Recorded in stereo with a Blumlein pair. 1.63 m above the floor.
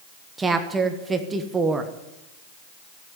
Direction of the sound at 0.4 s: 15° right.